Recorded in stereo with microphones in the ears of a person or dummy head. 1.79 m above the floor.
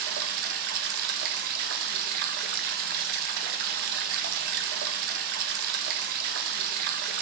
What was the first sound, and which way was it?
Running water, 60° right (ahead or behind).